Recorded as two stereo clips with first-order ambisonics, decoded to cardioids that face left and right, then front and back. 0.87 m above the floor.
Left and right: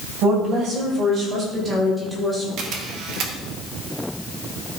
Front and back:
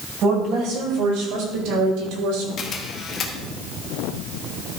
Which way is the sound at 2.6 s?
55° right.